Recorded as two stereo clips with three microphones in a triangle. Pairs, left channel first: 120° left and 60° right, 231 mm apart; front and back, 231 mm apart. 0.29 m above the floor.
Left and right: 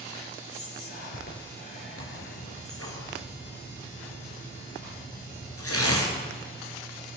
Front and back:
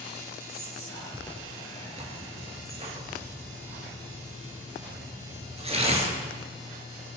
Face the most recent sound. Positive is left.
turn(degrees=115)